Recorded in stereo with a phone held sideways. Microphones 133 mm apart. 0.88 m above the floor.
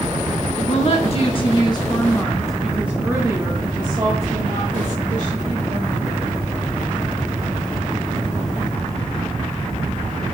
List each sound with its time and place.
0.6 s a woman speaking: 55° left (ahead or behind), 1.3 m; by 6.2 s 55° right (ahead or behind), 2.5 m